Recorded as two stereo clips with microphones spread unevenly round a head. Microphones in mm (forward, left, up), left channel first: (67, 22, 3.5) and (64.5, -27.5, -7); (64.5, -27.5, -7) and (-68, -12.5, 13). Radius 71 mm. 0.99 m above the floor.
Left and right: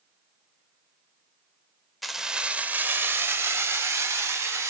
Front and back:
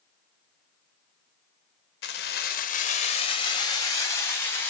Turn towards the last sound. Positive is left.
turn(degrees=-80)